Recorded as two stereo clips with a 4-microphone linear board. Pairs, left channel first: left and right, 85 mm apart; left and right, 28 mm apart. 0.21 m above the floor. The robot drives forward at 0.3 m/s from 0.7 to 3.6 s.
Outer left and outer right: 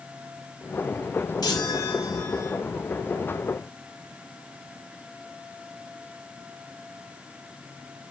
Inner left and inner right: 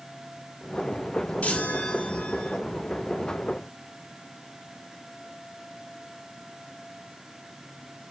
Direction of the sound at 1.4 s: 50° left (ahead or behind).